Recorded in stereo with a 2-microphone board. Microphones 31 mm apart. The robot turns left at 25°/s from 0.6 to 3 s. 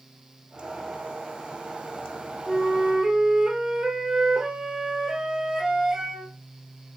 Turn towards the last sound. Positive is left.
turn(degrees=-20)  # may be behind; listen again after turning